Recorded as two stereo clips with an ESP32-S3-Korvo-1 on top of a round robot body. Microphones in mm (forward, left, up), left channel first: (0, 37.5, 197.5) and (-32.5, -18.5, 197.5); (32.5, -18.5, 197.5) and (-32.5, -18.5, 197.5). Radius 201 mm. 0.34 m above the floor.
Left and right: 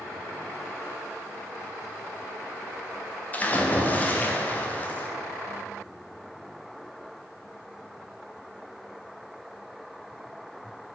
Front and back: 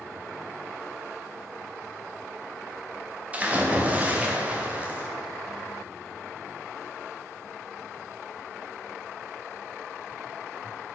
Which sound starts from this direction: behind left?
A splash, at 3.3 s.